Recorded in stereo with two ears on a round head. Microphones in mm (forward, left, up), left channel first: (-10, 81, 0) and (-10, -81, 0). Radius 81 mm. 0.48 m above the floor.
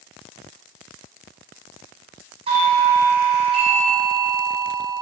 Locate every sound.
2.5 s a doorbell: 30° right (ahead or behind), 4 m